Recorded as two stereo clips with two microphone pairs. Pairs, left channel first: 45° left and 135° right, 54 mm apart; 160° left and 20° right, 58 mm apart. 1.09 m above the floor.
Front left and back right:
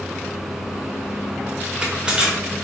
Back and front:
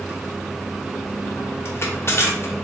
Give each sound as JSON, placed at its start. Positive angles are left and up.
{"t": 1.6, "sound": "crushing", "azimuth_deg": 170, "distance_m": 1.0}